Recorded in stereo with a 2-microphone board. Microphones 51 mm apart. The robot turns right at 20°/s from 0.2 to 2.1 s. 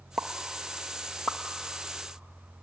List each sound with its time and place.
0.2 s a pop: centre (ahead or behind), 0.6 m; by 1.4 s 25° left (ahead or behind), 0.6 m